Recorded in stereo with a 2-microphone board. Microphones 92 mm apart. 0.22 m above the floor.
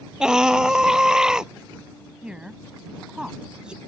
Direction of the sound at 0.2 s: 10° right (ahead or behind).